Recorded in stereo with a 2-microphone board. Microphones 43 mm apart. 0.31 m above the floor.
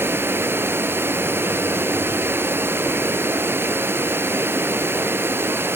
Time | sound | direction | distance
0.0 | running water | 60° right (ahead or behind) | 0.7 m